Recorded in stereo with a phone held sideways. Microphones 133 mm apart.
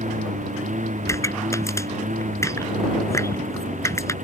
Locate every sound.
0.0 s a lawn mower: 70° right (ahead or behind)
1.1 s a pop: 20° left (ahead or behind)